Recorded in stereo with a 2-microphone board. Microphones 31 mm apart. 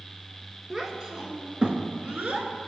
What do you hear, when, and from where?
0.7 s a child speaking: 15° right (ahead or behind), 1.4 m; by 2.5 s 55° right (ahead or behind), 1.6 m